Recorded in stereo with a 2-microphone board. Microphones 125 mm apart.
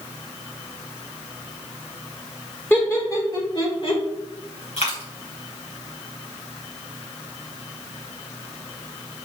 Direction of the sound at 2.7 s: 20° left (ahead or behind).